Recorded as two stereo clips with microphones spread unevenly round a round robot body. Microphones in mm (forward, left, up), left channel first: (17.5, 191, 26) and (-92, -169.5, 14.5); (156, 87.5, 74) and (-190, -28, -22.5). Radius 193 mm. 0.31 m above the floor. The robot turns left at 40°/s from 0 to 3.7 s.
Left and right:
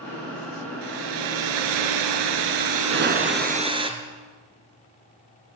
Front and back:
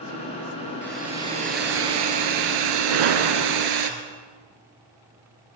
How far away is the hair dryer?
About 3 m.